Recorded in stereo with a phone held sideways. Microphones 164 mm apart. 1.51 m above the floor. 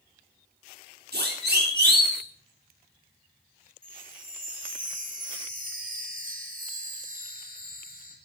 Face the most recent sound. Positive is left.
turn(degrees=-60)  # may be behind; listen again after turning